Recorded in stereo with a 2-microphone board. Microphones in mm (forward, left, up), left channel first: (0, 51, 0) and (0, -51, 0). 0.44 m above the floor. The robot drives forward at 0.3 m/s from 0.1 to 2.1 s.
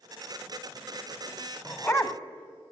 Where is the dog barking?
25° left (ahead or behind), 0.7 m; by 2.2 s 30° left (ahead or behind), 0.6 m.